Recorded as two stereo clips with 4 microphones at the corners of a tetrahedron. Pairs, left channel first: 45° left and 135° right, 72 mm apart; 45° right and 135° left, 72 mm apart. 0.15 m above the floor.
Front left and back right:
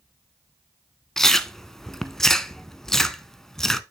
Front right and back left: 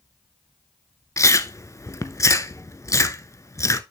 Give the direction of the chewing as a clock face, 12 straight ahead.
1 o'clock.